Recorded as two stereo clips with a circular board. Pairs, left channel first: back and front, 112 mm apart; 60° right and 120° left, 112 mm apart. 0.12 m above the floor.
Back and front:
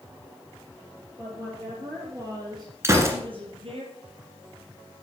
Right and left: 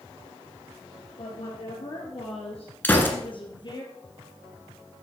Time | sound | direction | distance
1.2 | a woman speaking | 65° right | 4 m
2.8 | a gunshot | 10° right | 1.7 m